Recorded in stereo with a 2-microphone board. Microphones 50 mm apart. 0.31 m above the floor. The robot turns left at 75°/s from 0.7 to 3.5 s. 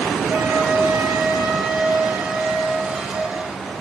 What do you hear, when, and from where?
0.3 s a flute: 40° right, 2.5 m; by 3.4 s 120° left, 2.5 m